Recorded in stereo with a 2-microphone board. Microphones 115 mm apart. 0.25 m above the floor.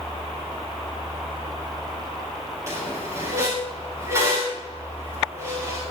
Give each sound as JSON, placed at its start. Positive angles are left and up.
{"t": 2.7, "sound": "a squeak", "side_deg": -25, "distance_m": 7.0}